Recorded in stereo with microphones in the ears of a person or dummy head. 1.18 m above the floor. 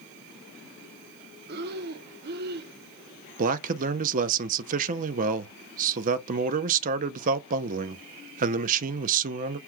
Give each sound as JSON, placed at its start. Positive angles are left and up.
{"t": 1.5, "sound": "breathing", "side_deg": -50, "distance_m": 0.6}
{"t": 3.4, "sound": "a man speaking", "side_deg": -45, "distance_m": 0.6}